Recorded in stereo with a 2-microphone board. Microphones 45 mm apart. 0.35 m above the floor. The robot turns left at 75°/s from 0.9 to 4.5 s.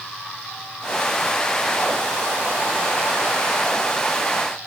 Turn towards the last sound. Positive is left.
No sound to turn to.